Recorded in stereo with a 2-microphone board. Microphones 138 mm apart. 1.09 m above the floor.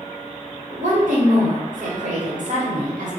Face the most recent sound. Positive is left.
turn(degrees=-65)  # may be behind; listen again after turning